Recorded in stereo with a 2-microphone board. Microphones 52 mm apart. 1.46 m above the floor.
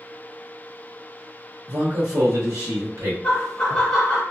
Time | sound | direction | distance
1.7 | a man speaking | 90° right | 0.8 m
3.2 | laughter | 15° left (ahead or behind) | 0.9 m